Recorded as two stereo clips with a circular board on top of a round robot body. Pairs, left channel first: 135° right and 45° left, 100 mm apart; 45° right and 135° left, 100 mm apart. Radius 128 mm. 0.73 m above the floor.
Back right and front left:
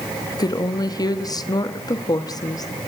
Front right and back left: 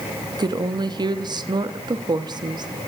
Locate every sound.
0.3 s a woman speaking: 175° left, 1.2 m